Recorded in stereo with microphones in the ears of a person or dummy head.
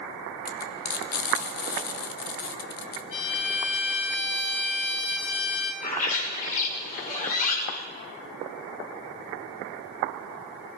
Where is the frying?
45° left (ahead or behind), 2.5 m.